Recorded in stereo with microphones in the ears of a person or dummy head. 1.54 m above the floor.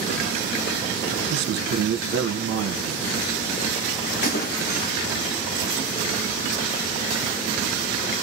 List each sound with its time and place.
1.3 s a man speaking: 65° right (ahead or behind), 1.4 m
4.2 s a splash: 60° left (ahead or behind), 1.1 m